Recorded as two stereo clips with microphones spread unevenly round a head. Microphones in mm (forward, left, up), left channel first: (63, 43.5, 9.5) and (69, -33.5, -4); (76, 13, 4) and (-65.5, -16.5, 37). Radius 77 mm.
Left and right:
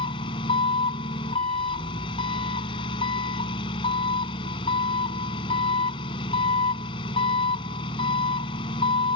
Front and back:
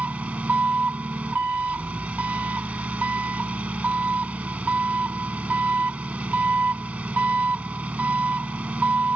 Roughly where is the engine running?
Left.